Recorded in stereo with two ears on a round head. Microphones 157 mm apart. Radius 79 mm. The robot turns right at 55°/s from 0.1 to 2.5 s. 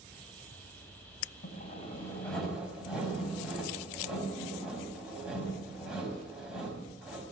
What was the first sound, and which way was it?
Sawing, 125° left.